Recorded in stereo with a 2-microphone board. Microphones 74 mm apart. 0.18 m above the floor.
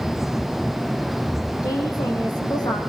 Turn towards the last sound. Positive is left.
turn(degrees=70)  # may be behind; listen again after turning